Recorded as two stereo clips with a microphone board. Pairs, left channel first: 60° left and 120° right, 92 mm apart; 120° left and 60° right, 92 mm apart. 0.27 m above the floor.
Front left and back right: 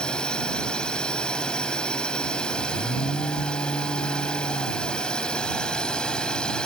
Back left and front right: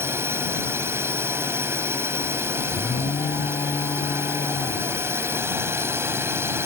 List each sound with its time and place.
0.0 s a drone: 15° right
2.7 s an alarm: 100° left